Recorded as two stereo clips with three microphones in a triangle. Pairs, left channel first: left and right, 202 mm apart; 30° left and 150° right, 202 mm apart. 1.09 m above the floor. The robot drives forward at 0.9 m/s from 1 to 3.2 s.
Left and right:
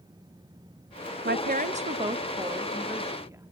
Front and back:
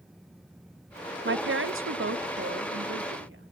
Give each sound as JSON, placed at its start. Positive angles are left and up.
{"t": 1.2, "sound": "a woman speaking", "azimuth_deg": -125, "distance_m": 0.7}